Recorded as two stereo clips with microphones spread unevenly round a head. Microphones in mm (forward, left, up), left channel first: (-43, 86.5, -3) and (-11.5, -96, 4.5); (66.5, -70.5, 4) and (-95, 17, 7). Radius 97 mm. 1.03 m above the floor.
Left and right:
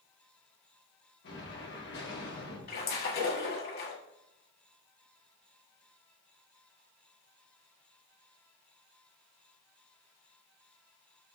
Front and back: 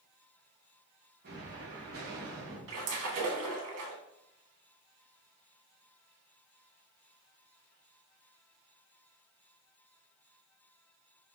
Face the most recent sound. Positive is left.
turn(degrees=140)